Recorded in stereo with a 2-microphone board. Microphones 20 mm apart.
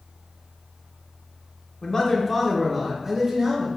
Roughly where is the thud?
No thud in this recording.